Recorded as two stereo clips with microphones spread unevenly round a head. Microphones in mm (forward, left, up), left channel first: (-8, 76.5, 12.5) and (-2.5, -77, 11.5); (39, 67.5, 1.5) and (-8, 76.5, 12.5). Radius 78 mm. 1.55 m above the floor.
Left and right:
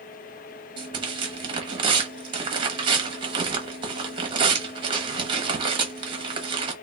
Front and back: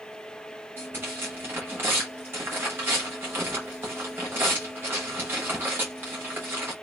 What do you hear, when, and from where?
0.8 s tearing paper: 145° right, 1.2 m